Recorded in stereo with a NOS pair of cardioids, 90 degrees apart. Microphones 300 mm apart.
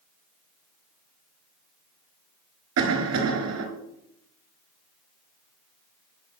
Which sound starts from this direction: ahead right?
A cough, at 2.8 s.